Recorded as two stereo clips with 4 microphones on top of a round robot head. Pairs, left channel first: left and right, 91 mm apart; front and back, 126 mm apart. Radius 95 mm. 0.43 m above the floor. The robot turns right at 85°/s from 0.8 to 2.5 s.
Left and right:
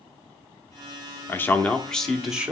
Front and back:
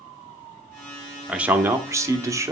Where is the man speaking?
105° left, 0.8 m; by 2.5 s 150° right, 0.8 m.